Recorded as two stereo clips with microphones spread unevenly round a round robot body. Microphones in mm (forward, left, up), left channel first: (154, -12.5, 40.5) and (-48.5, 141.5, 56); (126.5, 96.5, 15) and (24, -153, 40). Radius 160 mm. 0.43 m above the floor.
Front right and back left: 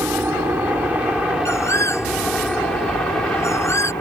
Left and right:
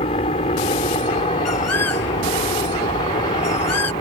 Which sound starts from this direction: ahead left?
A bird, at 1.4 s.